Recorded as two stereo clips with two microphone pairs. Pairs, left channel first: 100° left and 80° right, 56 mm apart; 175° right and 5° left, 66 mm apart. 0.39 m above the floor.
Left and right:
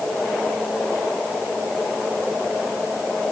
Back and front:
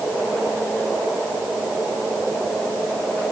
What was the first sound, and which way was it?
Only background noise.